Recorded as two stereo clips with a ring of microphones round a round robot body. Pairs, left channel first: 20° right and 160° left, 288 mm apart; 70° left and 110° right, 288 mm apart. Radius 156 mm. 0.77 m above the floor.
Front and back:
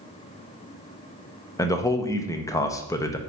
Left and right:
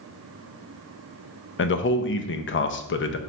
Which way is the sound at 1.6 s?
50° left.